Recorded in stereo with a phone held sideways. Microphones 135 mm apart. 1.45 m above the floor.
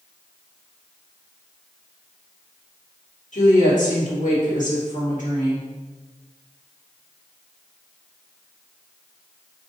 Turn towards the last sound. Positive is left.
turn(degrees=70)  # may be behind; listen again after turning